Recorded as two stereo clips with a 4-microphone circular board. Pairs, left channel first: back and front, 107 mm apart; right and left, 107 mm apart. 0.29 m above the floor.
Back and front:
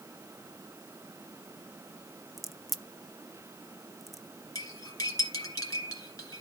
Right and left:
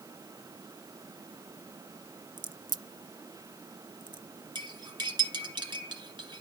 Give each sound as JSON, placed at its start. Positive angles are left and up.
{"t": 2.4, "sound": "a crack", "azimuth_deg": 90, "distance_m": 0.5}
{"t": 4.5, "sound": "cutlery clinking", "azimuth_deg": 125, "distance_m": 1.9}